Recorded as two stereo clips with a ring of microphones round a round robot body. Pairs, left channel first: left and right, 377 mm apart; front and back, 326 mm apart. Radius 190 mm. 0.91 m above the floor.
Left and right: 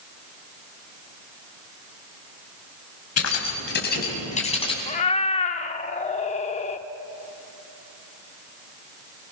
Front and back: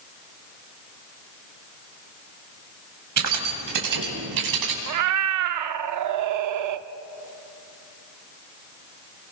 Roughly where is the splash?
No splash in this recording.